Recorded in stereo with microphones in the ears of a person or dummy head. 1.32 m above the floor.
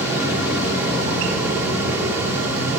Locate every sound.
0.0 s a fan: 10° right (ahead or behind), 1.3 m